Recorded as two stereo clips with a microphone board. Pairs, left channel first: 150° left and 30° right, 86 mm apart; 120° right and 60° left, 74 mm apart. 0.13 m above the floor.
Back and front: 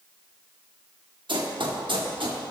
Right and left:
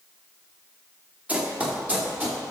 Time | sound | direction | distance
1.3 | running footsteps | 10° right | 2.5 m